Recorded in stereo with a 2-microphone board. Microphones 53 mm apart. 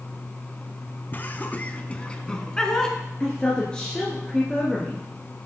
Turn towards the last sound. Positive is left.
turn(degrees=15)  # may be behind; listen again after turning